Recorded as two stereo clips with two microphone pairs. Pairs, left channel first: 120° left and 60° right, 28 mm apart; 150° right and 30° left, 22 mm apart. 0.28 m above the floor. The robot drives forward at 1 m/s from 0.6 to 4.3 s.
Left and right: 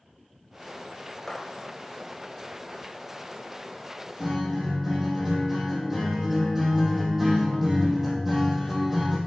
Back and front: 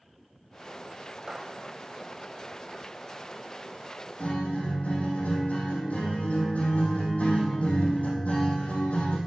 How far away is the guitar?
About 4 m.